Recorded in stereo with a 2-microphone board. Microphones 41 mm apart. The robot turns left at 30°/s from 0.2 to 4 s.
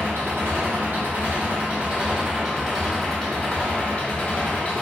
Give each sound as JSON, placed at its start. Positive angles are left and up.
{"t": 0.0, "sound": "an engine running", "azimuth_deg": -100, "distance_m": 0.8}